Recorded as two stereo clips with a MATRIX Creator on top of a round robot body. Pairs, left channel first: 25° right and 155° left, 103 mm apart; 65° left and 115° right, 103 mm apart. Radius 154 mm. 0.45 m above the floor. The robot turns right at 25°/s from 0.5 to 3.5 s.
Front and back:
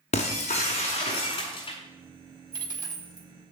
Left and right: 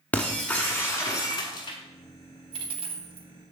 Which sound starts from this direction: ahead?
Breaking glass, at 0.1 s.